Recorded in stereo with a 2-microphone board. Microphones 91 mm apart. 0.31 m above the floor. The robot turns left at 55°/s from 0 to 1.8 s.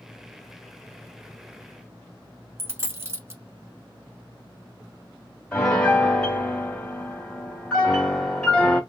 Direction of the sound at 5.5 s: 10° left (ahead or behind).